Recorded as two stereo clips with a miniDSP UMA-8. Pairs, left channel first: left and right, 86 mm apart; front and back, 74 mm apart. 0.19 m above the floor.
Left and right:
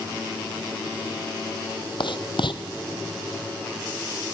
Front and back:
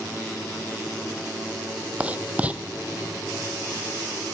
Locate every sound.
2.0 s writing: 110° left, 1.2 m